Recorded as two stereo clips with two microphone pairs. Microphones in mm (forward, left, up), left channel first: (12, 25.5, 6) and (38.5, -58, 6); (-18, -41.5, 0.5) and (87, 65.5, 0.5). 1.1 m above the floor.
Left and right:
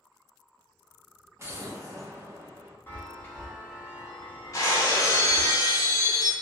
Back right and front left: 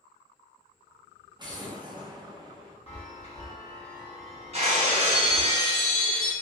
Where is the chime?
175° left, 0.7 m.